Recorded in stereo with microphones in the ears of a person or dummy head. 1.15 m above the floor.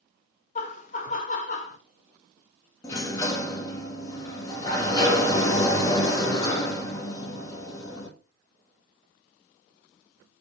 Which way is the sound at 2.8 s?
15° left (ahead or behind).